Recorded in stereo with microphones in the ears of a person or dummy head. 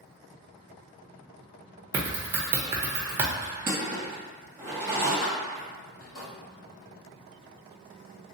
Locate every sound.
1.9 s typing on a keyboard: 10° right (ahead or behind), 0.7 m
3.4 s crushing: 15° right (ahead or behind), 1.6 m
5.2 s keys jangling: 45° left (ahead or behind), 1.1 m